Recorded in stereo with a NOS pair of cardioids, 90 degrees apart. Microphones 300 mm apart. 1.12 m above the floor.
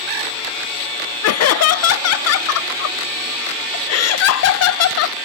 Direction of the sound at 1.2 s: 55° left.